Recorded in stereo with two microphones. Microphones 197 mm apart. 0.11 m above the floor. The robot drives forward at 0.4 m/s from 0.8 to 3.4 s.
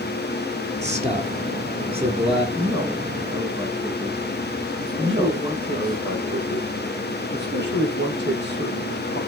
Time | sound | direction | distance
0.8 | a man speaking | 35° right (ahead or behind) | 2.5 m
2.5 | a man speaking | 20° right (ahead or behind) | 5 m
5.0 | a man speaking | 60° right (ahead or behind) | 3.5 m